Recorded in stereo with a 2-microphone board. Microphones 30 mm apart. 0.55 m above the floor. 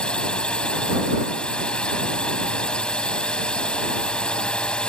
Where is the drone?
35° left (ahead or behind).